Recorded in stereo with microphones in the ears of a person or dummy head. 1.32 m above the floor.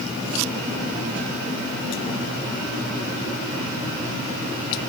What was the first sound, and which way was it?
Only background noise.